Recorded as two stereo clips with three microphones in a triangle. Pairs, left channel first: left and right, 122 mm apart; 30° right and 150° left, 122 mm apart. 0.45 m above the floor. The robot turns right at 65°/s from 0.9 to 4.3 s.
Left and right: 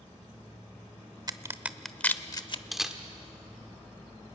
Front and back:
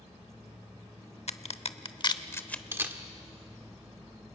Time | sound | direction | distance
1.3 | a crack | 35° right | 0.8 m
2.7 | a camera shutter | 175° right | 1.3 m